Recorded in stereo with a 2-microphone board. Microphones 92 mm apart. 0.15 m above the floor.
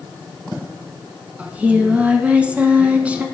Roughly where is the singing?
Centre.